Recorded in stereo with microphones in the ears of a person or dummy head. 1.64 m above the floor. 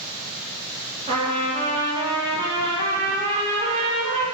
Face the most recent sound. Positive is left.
turn(degrees=-30)  # may be behind; listen again after turning